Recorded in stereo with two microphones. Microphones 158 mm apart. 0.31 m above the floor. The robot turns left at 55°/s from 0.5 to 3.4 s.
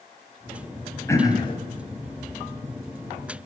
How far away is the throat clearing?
About 1.9 m.